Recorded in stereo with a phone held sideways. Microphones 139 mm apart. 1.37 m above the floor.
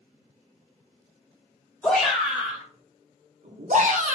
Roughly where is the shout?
Centre.